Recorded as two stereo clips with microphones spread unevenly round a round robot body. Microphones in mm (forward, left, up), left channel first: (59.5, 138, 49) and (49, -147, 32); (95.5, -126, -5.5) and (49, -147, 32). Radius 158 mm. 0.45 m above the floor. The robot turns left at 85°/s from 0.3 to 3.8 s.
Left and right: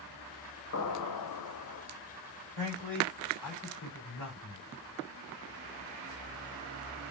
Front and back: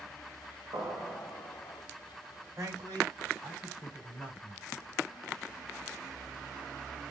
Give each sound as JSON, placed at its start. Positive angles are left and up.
{"t": 0.7, "sound": "an explosion", "azimuth_deg": 140, "distance_m": 0.8}
{"t": 2.6, "sound": "a man speaking", "azimuth_deg": -155, "distance_m": 3.5}